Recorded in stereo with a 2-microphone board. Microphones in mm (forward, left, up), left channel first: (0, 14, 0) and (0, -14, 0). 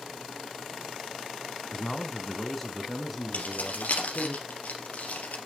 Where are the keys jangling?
65° left (ahead or behind), 3 m.